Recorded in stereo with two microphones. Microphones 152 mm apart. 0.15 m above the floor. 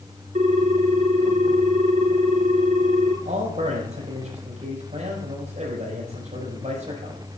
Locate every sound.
0.3 s a ringtone: 50° right (ahead or behind), 1.1 m
3.2 s a man speaking: 50° right (ahead or behind), 5.5 m